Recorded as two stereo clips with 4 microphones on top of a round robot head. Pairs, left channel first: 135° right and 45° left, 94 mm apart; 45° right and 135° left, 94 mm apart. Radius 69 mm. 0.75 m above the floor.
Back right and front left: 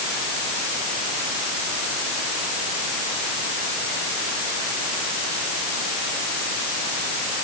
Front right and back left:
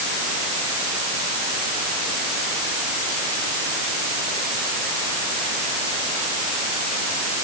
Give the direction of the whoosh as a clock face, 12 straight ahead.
No whoosh in this recording.